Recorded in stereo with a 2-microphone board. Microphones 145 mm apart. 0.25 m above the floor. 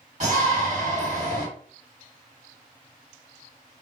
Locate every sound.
0.2 s a shout: 50° right (ahead or behind), 1.9 m